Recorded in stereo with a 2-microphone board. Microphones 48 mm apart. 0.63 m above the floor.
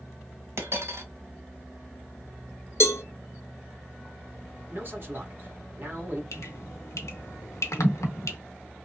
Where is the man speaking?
45° right (ahead or behind), 1.4 m.